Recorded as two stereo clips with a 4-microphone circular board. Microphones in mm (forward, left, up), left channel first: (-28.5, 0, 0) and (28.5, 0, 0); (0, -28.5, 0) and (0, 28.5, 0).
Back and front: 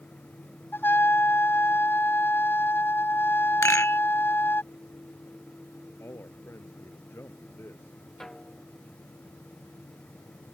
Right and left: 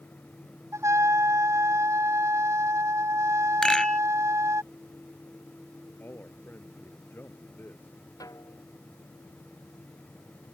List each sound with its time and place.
0.7 s a trumpet: 125° left
3.6 s a rattle: 170° right
6.0 s a man speaking: 140° right
8.2 s a snare drum: 100° right